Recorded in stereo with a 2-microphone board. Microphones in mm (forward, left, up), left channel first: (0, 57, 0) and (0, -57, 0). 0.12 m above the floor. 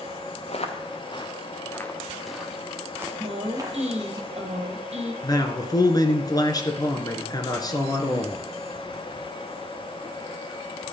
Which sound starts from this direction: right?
A woman speaking, at 3.2 s.